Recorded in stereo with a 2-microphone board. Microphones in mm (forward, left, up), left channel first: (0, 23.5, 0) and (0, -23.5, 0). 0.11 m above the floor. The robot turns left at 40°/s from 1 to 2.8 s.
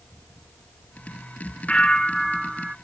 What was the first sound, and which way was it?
A bell, 25° left.